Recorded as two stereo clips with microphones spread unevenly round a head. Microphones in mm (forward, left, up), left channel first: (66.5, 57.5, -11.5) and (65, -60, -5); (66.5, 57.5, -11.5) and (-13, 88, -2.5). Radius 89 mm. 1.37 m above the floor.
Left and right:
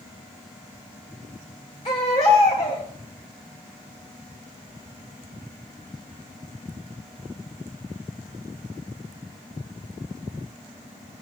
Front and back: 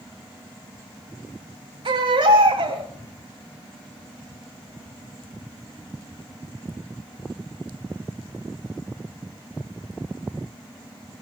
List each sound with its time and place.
1.9 s a baby crying: 150° left, 3 m